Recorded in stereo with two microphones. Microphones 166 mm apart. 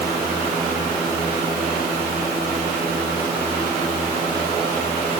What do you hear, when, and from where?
Only background noise.